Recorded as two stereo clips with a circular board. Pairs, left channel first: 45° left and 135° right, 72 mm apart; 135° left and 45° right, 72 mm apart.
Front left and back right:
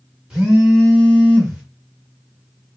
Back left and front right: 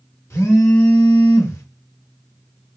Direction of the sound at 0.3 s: 155° left.